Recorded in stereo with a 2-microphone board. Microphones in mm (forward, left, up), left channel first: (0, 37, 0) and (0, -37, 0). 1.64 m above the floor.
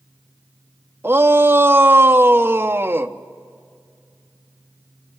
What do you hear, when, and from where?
1.0 s a shout: 30° right (ahead or behind), 1.0 m